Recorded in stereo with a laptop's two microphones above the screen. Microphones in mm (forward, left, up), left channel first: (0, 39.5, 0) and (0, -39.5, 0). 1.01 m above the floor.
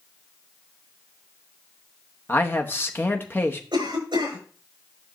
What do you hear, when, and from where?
2.3 s a man speaking: 25° left (ahead or behind), 0.9 m
3.7 s a cough: 80° right, 5 m